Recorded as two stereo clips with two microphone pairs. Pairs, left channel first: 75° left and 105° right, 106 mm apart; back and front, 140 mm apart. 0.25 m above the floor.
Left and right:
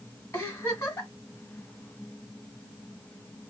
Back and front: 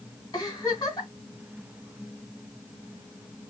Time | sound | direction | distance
0.3 | a giggle | 130° left | 2.5 m